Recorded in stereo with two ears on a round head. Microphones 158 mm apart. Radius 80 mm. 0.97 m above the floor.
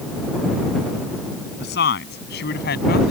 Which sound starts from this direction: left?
A woman speaking, at 1.6 s.